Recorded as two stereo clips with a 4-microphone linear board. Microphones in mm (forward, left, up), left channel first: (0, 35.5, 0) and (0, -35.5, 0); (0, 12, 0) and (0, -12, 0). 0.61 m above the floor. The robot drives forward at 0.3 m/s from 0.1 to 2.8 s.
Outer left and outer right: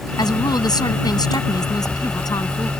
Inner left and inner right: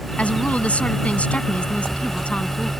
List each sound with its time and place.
0.2 s a woman speaking: 70° left (ahead or behind); by 2.7 s 60° left (ahead or behind)